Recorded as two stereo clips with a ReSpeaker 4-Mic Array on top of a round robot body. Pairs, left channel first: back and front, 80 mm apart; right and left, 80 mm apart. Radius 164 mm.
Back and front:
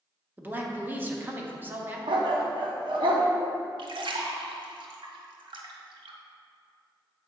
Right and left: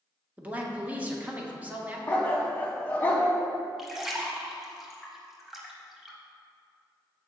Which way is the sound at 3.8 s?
5° left.